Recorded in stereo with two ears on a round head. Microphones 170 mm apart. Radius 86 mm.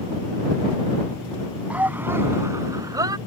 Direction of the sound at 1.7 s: 10° right (ahead or behind).